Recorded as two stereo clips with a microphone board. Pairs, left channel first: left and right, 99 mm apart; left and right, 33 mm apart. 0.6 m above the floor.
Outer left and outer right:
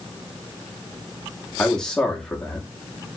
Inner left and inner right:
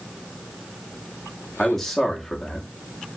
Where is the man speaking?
5° left (ahead or behind), 0.9 m.